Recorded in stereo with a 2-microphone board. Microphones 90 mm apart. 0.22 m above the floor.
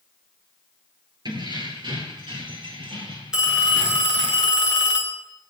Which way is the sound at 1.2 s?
55° right (ahead or behind).